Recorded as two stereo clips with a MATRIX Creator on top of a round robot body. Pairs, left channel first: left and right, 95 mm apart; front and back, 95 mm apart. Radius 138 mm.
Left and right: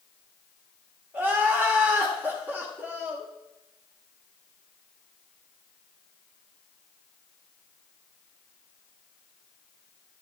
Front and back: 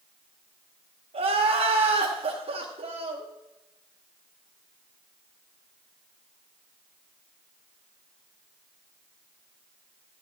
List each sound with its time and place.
1.1 s crying: 165° right, 1.7 m